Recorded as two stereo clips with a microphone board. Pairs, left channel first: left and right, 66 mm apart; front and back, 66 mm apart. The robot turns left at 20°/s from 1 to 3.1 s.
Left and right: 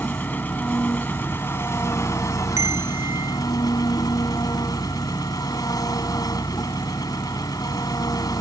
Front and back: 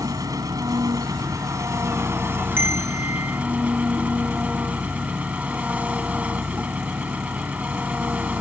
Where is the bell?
125° right; by 3.4 s 135° right.